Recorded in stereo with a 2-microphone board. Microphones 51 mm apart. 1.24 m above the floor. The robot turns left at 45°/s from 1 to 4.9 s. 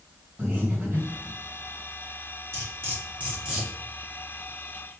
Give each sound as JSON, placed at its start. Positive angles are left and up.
{"t": 0.4, "sound": "breathing", "side_deg": -45, "distance_m": 1.8}
{"t": 2.5, "sound": "cutlery clinking", "side_deg": -60, "distance_m": 1.6}